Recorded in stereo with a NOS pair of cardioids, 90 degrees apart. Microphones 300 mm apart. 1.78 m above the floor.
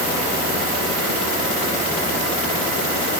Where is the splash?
I don't hear a splash.